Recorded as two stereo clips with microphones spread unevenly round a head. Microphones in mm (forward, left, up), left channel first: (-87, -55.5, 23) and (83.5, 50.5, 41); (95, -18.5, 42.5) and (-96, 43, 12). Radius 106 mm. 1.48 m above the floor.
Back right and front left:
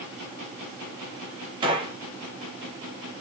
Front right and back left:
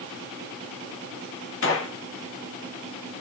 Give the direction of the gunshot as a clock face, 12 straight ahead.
1 o'clock.